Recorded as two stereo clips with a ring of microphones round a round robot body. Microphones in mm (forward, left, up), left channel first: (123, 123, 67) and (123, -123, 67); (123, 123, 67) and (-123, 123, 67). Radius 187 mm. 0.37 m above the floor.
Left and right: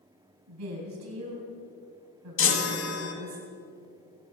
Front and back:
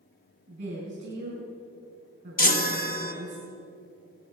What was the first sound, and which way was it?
A woman speaking, 110° right.